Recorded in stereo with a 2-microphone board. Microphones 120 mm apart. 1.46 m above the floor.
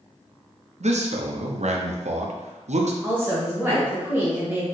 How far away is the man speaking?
About 0.6 m.